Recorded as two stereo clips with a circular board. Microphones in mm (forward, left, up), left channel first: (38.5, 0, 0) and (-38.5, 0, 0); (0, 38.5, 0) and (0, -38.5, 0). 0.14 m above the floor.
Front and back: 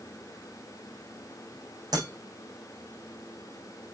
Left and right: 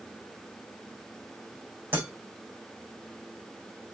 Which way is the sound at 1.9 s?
150° right.